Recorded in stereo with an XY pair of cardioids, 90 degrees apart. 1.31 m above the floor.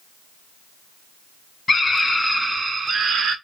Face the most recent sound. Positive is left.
turn(degrees=-80)